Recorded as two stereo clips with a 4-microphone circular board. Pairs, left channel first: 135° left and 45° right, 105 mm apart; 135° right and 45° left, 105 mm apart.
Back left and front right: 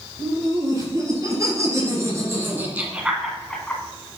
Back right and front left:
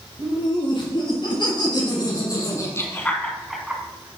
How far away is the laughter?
About 5 m.